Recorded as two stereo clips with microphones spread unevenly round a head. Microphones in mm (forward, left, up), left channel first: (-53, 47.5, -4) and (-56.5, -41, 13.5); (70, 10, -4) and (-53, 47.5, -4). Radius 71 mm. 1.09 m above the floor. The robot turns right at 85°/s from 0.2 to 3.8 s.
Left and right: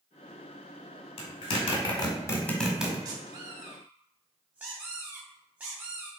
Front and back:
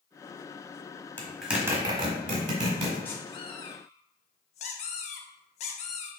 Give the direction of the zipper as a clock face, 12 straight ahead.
10 o'clock.